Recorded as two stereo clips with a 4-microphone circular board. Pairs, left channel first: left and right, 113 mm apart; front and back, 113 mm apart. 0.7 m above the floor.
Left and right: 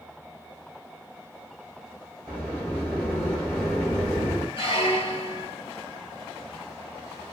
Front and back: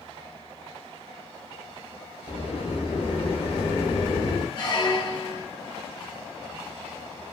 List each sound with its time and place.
2.3 s a sliding door: 15° left, 1.8 m
4.6 s a squeak: 50° left, 1.1 m